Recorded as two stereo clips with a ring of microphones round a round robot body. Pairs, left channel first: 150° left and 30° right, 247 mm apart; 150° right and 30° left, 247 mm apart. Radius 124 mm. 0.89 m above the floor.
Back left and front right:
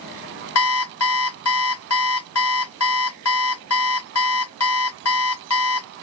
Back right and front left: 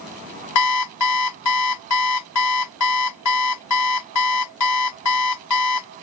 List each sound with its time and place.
0.6 s an alarm clock: 175° right